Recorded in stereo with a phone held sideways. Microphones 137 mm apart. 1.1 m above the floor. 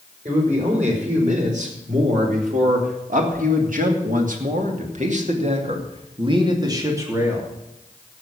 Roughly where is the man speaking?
Right.